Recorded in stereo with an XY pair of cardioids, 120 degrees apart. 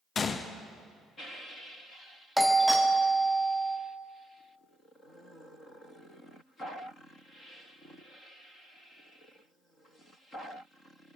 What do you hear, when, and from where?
0.1 s a gunshot: 35° left, 0.6 m
2.4 s a doorbell: straight ahead, 0.8 m